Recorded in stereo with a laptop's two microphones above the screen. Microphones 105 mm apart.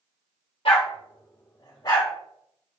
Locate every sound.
0.7 s a dog barking: 65° left (ahead or behind), 1.6 m; by 2.1 s 40° left (ahead or behind), 2.5 m